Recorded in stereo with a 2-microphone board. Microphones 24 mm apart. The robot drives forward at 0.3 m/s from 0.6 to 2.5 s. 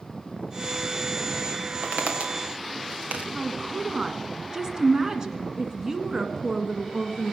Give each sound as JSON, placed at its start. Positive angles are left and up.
{"t": 1.8, "sound": "footsteps", "side_deg": -80, "distance_m": 4.0}
{"t": 3.3, "sound": "a woman speaking", "side_deg": -30, "distance_m": 1.7}